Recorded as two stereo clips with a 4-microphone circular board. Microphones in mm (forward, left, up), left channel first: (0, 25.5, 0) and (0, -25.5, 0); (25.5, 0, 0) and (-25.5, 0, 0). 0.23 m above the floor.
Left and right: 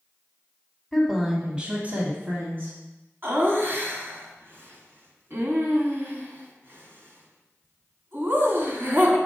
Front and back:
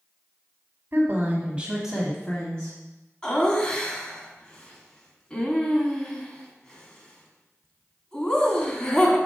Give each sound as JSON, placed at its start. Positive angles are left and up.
{"t": 0.9, "sound": "a woman speaking", "azimuth_deg": 175, "distance_m": 1.3}
{"t": 3.2, "sound": "laughter", "azimuth_deg": -70, "distance_m": 1.5}